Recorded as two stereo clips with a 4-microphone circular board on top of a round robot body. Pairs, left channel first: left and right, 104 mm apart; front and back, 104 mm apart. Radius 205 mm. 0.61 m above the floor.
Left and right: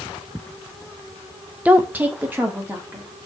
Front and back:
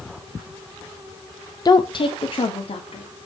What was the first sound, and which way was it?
A woman speaking, 20° right.